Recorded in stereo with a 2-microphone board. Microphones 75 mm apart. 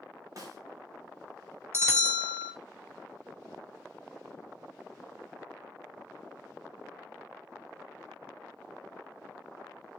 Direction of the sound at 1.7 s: 35° right (ahead or behind).